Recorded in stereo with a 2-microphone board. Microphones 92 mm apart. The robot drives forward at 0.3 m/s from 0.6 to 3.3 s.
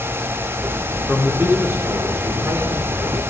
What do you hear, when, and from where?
1.1 s a man speaking: 25° right (ahead or behind), 4 m; by 3.2 s 20° right (ahead or behind), 5 m